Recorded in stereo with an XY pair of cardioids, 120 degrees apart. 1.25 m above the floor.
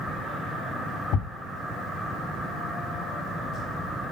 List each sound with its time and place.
1.1 s a thud: 65° left, 1.7 m